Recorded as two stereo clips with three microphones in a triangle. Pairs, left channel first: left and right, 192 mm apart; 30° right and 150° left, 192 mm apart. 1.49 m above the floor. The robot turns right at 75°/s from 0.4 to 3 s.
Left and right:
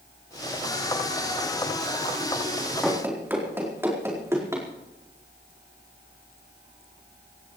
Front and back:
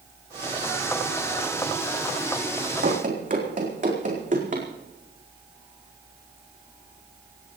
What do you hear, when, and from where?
2.8 s running footsteps: 175° left, 4 m; by 4.7 s 165° right, 5 m